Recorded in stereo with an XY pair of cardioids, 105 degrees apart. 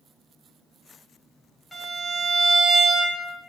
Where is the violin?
Straight ahead, 1.0 m.